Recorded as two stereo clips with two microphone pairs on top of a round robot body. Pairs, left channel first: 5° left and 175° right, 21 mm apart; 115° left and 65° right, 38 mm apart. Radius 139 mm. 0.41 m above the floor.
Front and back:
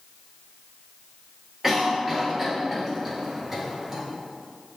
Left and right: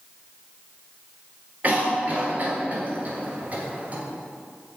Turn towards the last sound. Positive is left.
turn(degrees=-105)